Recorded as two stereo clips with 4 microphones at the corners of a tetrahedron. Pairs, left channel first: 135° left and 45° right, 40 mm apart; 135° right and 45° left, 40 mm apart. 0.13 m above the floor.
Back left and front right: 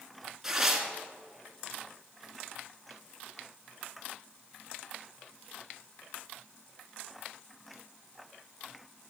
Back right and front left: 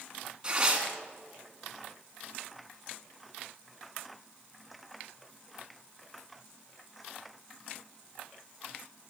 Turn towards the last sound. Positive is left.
turn(degrees=25)